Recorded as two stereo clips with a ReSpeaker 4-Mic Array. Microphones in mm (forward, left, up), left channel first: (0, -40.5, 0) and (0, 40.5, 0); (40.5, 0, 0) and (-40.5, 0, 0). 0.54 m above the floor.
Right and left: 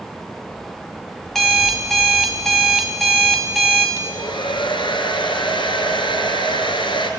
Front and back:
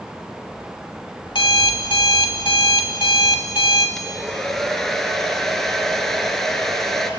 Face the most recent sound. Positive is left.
turn(degrees=-85)